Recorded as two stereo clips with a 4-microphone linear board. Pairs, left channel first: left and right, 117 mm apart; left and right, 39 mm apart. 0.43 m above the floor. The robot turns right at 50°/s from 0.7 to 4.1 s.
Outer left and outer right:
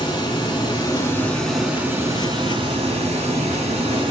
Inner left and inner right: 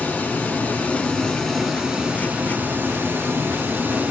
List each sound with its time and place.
0.0 s running water: 140° left, 1.2 m; by 4.1 s 50° right, 1.2 m